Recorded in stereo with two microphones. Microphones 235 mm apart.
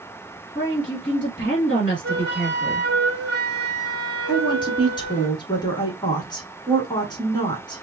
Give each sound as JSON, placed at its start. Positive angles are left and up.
{"t": 0.6, "sound": "a woman speaking", "side_deg": 35, "distance_m": 1.3}
{"t": 2.0, "sound": "a flute", "side_deg": -45, "distance_m": 0.7}
{"t": 4.3, "sound": "a woman speaking", "side_deg": 20, "distance_m": 1.1}